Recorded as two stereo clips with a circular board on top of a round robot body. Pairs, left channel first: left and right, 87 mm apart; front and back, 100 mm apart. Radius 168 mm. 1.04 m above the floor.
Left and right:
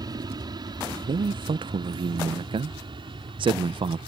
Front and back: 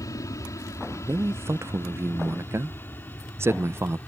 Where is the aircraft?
55° right; by 4.1 s 75° right.